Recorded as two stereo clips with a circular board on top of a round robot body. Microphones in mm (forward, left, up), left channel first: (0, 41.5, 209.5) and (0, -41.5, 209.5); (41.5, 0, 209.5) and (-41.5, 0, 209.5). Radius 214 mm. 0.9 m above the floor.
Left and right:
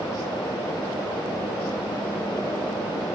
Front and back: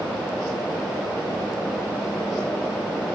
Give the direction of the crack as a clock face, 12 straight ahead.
I don't hear a crack.